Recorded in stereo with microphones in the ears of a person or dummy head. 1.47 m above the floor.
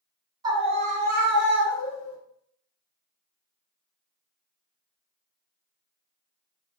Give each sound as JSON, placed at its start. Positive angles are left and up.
{"t": 0.4, "sound": "a scream", "side_deg": -25, "distance_m": 0.6}